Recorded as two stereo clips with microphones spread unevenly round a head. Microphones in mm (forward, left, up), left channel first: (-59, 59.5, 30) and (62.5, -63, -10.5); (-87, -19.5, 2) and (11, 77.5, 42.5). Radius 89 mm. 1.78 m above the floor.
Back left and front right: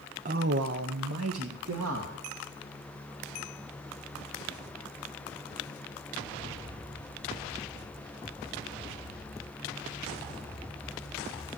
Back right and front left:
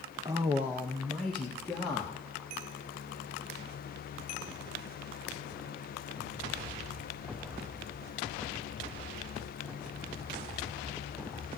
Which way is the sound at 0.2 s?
5° left.